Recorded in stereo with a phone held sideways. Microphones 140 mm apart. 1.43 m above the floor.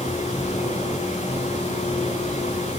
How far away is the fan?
About 7.5 m.